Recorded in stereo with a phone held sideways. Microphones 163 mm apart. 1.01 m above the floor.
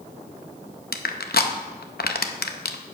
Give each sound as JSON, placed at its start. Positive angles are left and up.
{"t": 0.9, "sound": "crushing", "side_deg": 70, "distance_m": 0.7}